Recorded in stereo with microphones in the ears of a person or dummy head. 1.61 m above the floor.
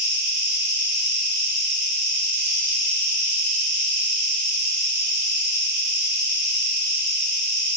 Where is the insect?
70° right (ahead or behind), 1.5 m.